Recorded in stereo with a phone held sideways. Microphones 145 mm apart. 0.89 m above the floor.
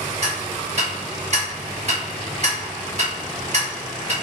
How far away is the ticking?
About 1.2 m.